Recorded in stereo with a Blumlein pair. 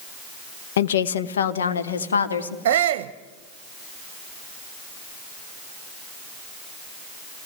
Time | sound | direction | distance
0.8 | a woman speaking | 60° left | 0.9 m
2.6 | a shout | 50° right | 0.9 m